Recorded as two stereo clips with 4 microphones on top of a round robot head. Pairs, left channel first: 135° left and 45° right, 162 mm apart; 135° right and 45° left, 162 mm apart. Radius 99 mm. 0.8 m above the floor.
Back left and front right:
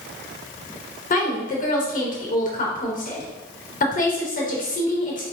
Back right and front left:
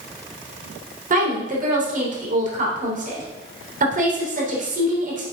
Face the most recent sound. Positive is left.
turn(degrees=90)